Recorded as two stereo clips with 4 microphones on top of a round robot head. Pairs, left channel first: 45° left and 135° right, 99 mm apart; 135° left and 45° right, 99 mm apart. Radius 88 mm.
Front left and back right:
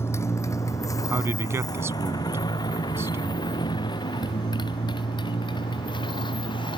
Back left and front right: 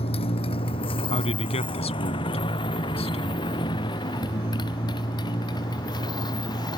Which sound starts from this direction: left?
A motorcycle, at 0.0 s.